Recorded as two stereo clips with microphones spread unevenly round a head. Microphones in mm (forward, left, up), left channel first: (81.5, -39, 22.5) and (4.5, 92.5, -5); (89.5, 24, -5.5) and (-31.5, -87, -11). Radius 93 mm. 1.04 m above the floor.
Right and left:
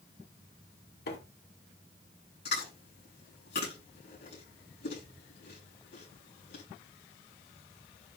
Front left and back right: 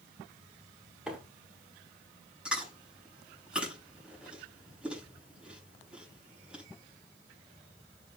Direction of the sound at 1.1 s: 55° right.